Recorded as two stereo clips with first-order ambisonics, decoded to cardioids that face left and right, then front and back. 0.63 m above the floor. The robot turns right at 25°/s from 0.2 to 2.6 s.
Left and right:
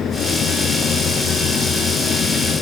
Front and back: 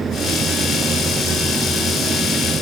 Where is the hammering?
I don't hear hammering.